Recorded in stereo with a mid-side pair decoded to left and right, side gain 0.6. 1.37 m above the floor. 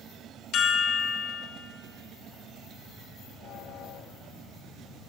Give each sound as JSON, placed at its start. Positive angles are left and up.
{"t": 0.5, "sound": "a chime", "azimuth_deg": 60, "distance_m": 1.8}